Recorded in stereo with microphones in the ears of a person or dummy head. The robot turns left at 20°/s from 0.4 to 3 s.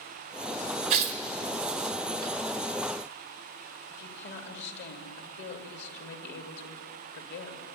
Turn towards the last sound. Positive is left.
turn(degrees=60)  # may be behind; listen again after turning